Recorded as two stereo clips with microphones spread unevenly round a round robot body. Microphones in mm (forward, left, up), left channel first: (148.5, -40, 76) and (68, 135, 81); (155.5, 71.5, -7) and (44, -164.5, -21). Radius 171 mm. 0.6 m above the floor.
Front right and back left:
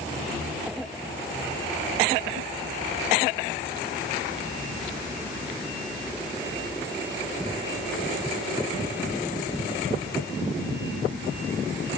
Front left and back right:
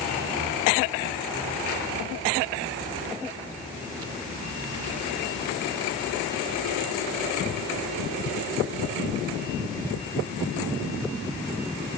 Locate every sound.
Only background noise.